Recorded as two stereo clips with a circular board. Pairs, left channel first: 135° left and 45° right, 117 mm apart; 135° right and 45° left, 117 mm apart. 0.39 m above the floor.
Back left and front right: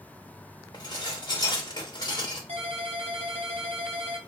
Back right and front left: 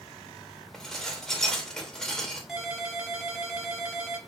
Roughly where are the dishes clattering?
Behind left.